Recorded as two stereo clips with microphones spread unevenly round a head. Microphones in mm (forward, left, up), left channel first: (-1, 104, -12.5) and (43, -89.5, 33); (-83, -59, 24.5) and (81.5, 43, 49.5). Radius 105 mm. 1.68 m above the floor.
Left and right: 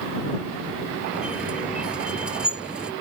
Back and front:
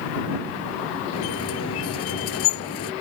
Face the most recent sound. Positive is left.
turn(degrees=-160)